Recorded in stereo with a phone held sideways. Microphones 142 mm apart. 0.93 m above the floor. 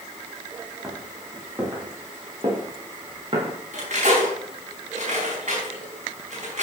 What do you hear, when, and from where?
0.8 s footsteps: 20° right (ahead or behind), 6.5 m; by 3.6 s 40° right (ahead or behind), 7 m
3.7 s cutlery clinking: 55° right (ahead or behind), 5 m